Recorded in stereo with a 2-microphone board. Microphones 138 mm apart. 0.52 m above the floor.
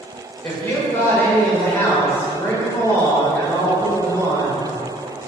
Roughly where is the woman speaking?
Centre.